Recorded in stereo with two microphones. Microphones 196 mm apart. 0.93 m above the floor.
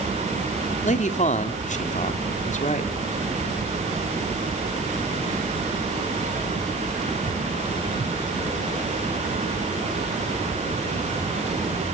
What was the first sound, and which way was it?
A man speaking, 35° left (ahead or behind).